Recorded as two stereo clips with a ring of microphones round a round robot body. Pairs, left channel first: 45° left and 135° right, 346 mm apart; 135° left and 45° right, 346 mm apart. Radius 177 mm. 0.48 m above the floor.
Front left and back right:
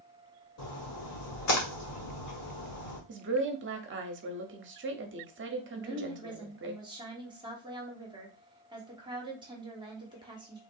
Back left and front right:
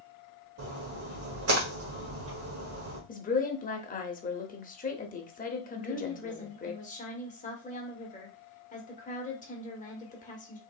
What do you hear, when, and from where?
0.6 s a splash: 5° left, 1.4 m
3.1 s a woman speaking: 170° right, 0.8 m
5.7 s a woman speaking: 165° left, 1.1 m